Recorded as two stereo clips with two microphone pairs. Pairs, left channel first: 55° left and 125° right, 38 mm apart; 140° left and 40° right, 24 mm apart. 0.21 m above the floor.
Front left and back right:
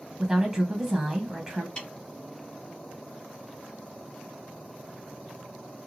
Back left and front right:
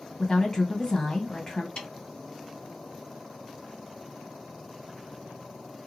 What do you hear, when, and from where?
0.2 s a woman speaking: 165° left, 1.5 m
1.8 s a snare drum: 115° left, 1.5 m